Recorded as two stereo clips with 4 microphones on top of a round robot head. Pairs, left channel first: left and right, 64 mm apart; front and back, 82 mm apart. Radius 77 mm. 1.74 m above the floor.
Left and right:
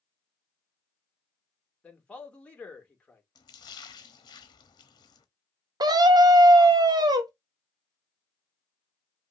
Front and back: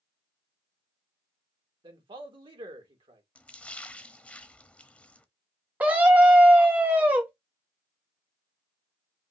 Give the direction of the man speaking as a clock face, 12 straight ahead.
7 o'clock.